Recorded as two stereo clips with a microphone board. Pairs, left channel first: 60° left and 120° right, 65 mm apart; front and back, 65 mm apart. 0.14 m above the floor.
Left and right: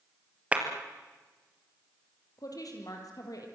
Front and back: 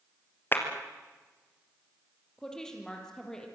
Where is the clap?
50° right, 3 m.